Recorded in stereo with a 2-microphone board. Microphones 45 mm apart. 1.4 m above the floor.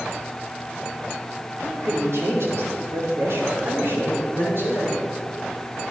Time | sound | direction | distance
1.6 | a man speaking | 75° right (ahead or behind) | 5 m